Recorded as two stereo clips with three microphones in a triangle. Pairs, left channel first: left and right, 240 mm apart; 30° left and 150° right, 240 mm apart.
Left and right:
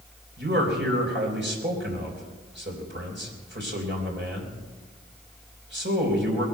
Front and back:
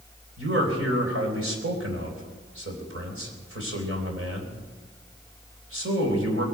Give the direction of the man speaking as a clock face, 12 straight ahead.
4 o'clock.